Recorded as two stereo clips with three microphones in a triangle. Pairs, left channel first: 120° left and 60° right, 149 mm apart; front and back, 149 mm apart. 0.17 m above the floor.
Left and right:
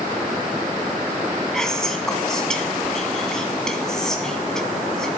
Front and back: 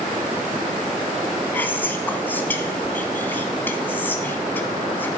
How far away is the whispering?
About 1.2 m.